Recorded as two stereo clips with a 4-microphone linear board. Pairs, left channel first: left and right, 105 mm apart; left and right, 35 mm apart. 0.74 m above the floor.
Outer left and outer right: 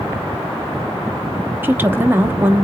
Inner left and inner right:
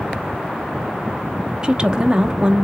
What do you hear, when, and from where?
1.6 s a woman speaking: 20° right (ahead or behind), 0.7 m